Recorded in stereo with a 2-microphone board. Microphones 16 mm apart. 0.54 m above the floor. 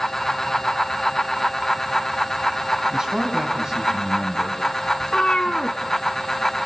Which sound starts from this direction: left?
A cat meowing, at 5.0 s.